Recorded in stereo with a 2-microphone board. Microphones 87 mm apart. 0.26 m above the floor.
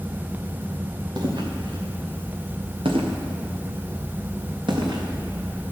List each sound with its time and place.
1.2 s footsteps: 55° right (ahead or behind), 3 m; by 5.0 s 60° right (ahead or behind), 3.5 m